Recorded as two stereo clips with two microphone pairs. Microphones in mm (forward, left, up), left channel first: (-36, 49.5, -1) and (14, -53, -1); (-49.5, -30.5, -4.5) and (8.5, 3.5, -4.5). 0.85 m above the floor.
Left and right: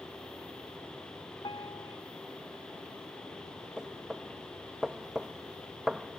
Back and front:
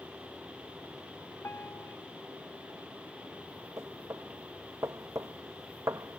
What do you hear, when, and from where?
1.4 s a piano: 160° left
3.8 s knocking: 20° left